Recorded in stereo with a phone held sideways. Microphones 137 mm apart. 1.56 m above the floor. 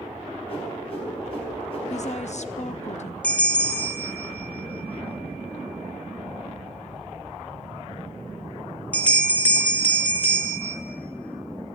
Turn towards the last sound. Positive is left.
turn(degrees=10)  # may be behind; listen again after turning